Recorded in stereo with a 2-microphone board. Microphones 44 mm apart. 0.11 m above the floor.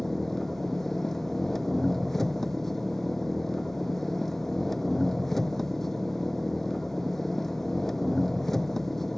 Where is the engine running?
10° left (ahead or behind).